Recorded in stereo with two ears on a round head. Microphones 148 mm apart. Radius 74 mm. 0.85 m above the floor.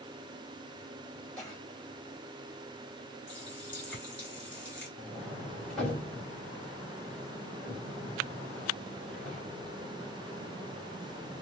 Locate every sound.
1.4 s a cough: 5° left (ahead or behind), 4 m
3.3 s a running tap: 10° left (ahead or behind), 3 m
5.0 s a sliding door: 5° left (ahead or behind), 2 m